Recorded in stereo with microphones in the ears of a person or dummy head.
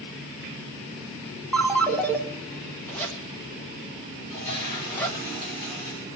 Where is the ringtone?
10° left (ahead or behind), 1.2 m.